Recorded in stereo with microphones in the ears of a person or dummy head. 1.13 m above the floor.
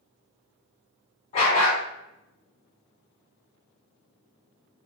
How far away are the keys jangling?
No keys jangling in this recording.